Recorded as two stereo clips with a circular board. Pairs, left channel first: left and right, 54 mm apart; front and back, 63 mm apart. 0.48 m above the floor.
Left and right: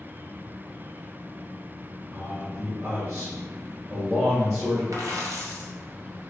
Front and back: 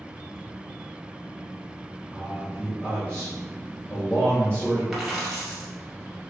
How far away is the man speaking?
About 1.6 m.